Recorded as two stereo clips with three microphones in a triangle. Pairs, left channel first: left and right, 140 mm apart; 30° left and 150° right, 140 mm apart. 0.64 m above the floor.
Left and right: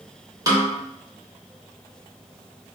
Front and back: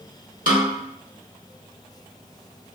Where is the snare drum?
155° right, 0.9 m.